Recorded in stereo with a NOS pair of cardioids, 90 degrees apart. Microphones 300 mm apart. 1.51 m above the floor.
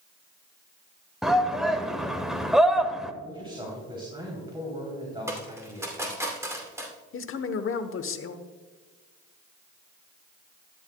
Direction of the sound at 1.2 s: Straight ahead.